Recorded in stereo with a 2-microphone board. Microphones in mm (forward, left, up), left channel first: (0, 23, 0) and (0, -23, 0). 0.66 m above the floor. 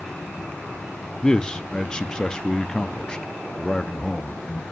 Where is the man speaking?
20° left (ahead or behind), 0.7 m.